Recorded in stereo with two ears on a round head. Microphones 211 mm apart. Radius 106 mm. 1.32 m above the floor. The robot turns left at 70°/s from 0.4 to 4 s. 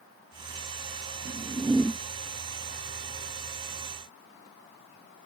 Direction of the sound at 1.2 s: 135° right.